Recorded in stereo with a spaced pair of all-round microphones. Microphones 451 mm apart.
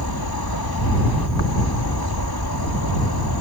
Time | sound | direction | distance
0.0 | an insect | 55° left (ahead or behind) | ?